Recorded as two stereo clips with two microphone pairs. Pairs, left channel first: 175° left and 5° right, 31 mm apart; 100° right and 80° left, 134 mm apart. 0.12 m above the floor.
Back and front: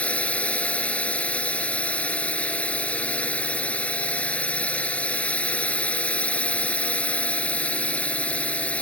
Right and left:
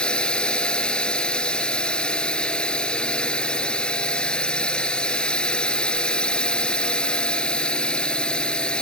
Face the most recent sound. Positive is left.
turn(degrees=180)